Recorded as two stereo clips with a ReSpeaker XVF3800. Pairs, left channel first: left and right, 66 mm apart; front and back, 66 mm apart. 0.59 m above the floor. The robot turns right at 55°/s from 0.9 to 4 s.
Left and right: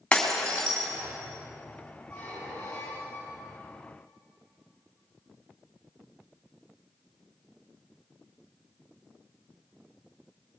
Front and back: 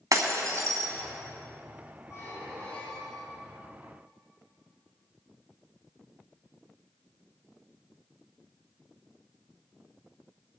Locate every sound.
0.1 s breaking glass: 165° left, 2.5 m
2.1 s a squeak: 20° left, 6 m; by 3.6 s 100° left, 6 m